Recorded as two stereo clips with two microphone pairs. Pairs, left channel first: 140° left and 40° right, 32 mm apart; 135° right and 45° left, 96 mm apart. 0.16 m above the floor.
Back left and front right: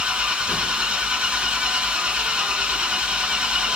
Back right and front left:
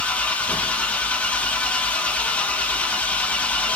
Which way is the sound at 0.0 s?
75° right.